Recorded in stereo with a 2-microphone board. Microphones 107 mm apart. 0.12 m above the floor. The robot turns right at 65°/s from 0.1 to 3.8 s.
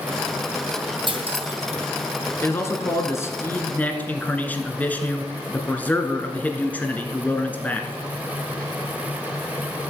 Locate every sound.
1.1 s cutlery clinking: 50° right (ahead or behind), 2.5 m; by 1.8 s 65° right (ahead or behind), 2.5 m
2.4 s a man speaking: 20° left (ahead or behind), 1.5 m; by 7.9 s 15° left (ahead or behind), 1.5 m